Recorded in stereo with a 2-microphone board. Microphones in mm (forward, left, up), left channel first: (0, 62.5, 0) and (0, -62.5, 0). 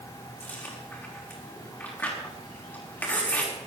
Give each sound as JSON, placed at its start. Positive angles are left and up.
{"t": 0.4, "sound": "chewing", "side_deg": 15, "distance_m": 5.0}